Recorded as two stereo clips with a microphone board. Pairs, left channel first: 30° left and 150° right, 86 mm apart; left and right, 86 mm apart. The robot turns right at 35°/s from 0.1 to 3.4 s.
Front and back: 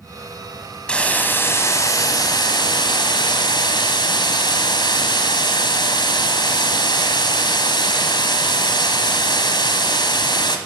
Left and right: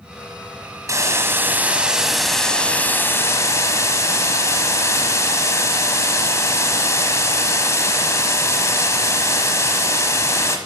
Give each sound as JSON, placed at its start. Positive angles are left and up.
{"t": 0.9, "sound": "a hiss", "azimuth_deg": -45, "distance_m": 1.2}